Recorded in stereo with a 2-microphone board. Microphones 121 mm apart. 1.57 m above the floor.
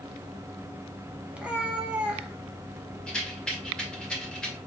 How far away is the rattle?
About 1.8 m.